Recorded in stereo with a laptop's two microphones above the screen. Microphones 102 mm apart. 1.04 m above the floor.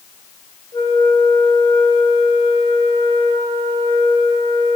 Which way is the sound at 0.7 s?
40° left (ahead or behind).